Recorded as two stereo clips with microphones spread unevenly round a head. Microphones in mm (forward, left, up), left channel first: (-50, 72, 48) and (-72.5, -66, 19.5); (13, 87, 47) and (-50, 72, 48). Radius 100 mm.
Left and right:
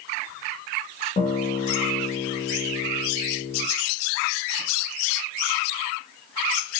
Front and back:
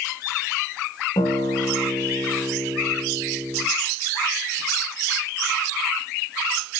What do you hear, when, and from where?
1.2 s a guitar: 20° left, 3.5 m